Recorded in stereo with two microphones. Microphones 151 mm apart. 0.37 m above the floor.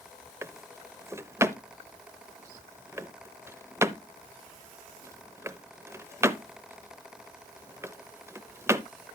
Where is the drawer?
20° right (ahead or behind), 0.5 m.